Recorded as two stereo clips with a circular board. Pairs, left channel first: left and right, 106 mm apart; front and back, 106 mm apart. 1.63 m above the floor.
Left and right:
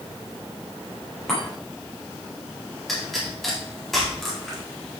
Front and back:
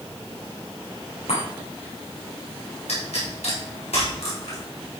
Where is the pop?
Straight ahead, 4.5 m.